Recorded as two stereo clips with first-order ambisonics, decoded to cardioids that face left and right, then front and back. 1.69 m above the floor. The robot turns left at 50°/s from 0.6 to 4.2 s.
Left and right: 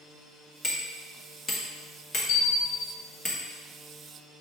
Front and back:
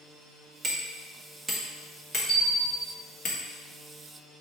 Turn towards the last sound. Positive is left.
turn(degrees=-20)